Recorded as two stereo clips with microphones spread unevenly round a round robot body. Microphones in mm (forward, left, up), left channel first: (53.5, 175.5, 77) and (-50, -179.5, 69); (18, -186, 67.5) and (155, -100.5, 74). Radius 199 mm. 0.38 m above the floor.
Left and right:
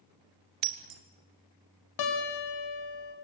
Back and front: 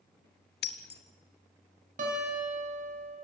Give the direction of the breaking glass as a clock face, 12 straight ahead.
5 o'clock.